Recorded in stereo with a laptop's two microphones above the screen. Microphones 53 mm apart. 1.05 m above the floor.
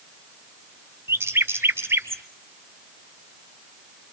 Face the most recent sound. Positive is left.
turn(degrees=-50)  # may be behind; listen again after turning